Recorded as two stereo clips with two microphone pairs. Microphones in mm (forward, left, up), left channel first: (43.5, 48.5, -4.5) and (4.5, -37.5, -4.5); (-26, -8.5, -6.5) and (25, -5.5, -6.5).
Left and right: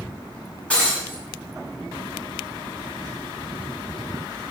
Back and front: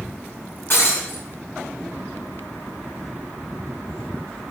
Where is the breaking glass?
140° left, 5 m.